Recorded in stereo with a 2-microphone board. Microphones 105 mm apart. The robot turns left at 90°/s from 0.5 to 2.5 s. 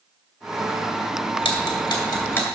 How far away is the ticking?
About 2.5 m.